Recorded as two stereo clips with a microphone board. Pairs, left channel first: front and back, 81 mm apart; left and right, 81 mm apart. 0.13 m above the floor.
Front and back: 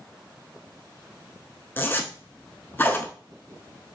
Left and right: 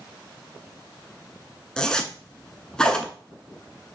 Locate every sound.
1.8 s a zipper: 20° left, 0.6 m